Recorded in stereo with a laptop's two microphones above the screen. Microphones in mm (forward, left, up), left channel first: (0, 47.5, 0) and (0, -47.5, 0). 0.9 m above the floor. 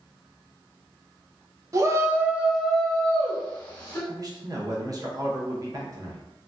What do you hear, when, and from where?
1.7 s a shout: 35° right (ahead or behind), 0.5 m; by 4.0 s 20° left (ahead or behind), 1.1 m
4.1 s a man speaking: 40° right (ahead or behind), 0.7 m